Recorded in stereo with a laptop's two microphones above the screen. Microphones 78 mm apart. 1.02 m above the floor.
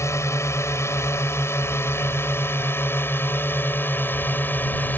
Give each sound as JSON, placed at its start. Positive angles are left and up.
{"t": 0.0, "sound": "a drone", "side_deg": 35}